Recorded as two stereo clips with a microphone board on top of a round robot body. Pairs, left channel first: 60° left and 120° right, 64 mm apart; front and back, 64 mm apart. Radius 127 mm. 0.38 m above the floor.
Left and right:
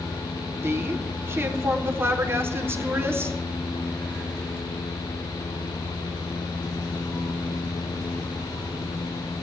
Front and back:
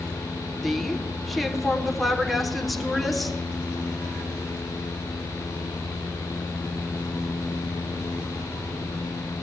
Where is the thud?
I don't hear a thud.